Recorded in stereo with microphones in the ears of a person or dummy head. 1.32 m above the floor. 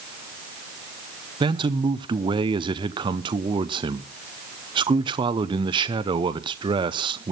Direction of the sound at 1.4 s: 30° right (ahead or behind).